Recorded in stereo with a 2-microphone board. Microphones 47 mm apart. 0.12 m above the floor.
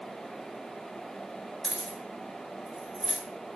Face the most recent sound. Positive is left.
turn(degrees=5)  # may be behind; listen again after turning